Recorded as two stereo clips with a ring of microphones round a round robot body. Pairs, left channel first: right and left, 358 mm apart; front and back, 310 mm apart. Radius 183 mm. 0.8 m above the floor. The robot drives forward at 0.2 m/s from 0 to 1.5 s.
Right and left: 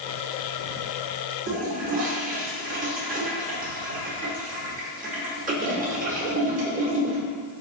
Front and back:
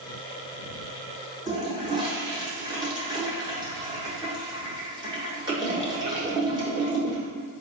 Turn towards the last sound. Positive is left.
turn(degrees=120)